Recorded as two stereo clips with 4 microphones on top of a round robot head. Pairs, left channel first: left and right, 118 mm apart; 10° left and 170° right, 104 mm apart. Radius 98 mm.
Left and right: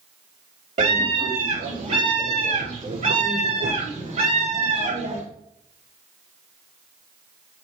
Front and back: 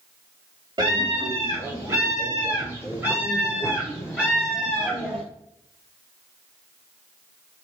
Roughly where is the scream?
Behind right.